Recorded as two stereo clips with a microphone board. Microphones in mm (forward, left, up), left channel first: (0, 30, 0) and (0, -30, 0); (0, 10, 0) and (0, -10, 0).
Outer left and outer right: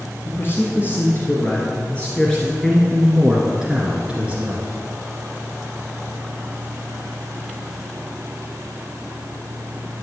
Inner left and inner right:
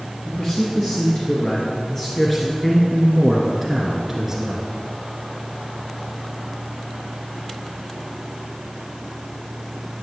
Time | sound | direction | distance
0.2 | a man speaking | 45° left (ahead or behind) | 3 m